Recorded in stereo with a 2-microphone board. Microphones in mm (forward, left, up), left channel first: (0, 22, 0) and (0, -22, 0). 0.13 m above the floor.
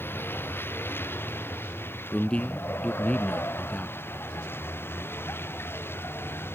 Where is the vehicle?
55° left (ahead or behind); by 6.6 s 60° left (ahead or behind).